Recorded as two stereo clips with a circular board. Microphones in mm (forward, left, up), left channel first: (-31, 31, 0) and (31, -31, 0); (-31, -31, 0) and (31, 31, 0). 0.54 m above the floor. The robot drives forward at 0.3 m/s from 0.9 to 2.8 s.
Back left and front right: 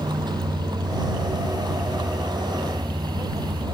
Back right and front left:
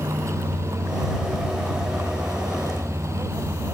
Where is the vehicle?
10° right.